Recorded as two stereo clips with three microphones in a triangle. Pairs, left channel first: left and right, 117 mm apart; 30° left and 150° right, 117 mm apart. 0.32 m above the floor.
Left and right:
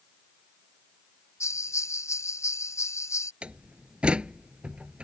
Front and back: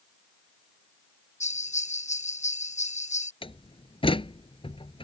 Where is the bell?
25° left.